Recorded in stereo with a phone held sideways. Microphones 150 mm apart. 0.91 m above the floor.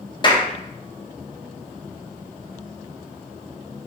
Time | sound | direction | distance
0.2 | a clap | 30° left (ahead or behind) | 0.5 m